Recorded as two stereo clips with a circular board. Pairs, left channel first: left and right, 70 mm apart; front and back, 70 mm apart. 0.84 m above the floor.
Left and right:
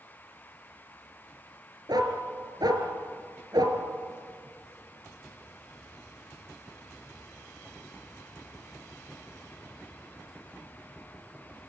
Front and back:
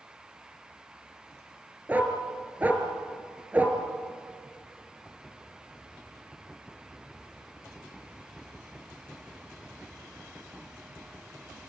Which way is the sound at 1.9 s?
115° right.